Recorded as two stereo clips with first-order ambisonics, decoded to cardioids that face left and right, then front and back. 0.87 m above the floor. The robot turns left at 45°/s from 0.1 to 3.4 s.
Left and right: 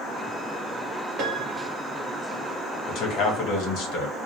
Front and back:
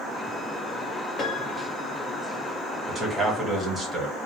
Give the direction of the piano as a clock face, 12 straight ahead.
2 o'clock.